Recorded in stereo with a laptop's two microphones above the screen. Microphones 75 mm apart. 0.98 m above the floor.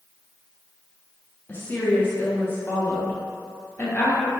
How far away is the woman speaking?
About 0.5 m.